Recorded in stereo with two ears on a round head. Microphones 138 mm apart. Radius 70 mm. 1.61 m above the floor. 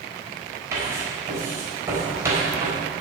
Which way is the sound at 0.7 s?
20° right (ahead or behind).